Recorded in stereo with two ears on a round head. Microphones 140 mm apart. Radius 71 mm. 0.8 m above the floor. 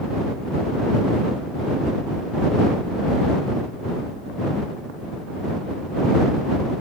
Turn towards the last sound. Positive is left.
No sound to turn to.